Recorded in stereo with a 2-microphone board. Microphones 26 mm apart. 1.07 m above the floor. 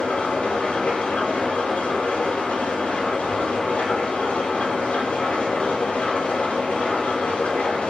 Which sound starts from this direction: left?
An engine running, at 0.0 s.